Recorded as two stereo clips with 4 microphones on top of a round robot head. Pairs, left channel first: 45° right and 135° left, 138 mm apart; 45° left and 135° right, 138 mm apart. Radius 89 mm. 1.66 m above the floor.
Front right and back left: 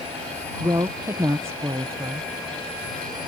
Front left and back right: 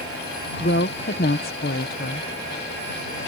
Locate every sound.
0.6 s a woman speaking: 60° left